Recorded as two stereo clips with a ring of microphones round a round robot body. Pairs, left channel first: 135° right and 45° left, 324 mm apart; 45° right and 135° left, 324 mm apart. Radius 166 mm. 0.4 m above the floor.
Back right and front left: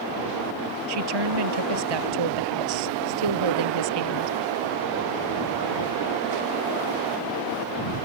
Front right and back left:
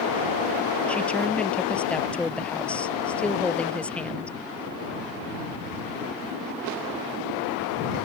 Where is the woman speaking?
40° left.